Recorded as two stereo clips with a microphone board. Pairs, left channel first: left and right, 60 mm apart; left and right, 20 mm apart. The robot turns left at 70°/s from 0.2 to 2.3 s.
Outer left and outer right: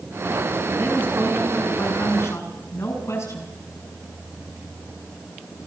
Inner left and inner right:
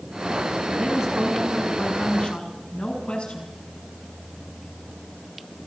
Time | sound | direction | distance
0.8 | a woman speaking | 125° right | 6.5 m